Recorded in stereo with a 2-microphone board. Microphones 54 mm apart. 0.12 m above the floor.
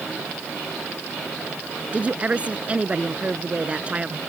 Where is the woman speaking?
25° right (ahead or behind).